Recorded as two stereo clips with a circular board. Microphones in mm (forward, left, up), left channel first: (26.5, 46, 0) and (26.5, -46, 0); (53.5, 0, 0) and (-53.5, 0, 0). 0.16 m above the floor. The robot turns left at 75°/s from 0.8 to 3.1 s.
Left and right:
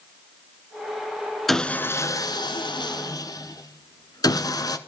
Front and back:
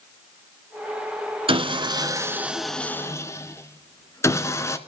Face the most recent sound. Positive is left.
turn(degrees=55)